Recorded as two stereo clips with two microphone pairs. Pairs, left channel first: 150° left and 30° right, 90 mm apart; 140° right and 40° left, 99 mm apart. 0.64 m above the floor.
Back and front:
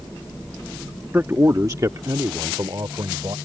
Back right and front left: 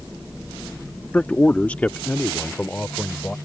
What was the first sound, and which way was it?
A man speaking, 80° right.